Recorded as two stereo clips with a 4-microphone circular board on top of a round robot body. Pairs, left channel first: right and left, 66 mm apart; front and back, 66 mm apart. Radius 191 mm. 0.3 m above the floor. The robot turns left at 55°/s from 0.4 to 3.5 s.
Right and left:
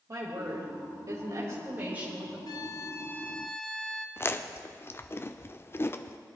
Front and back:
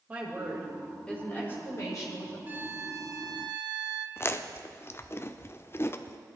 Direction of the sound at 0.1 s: 115° left.